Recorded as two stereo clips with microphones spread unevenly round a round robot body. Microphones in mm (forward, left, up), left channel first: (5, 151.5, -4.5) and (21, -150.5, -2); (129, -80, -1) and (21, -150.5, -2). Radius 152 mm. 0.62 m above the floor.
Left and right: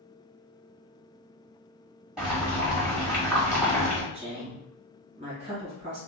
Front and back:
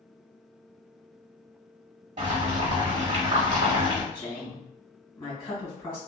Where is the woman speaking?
20° right, 1.9 m.